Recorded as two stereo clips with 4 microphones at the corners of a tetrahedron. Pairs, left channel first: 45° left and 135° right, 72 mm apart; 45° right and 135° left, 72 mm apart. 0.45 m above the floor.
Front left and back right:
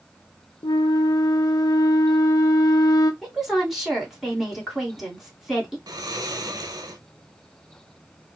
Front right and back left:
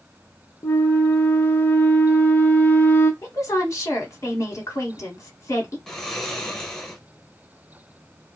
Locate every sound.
0.6 s a flute: 10° left, 0.5 m
3.2 s a woman speaking: 50° right, 1.9 m
5.9 s snoring: 125° right, 0.7 m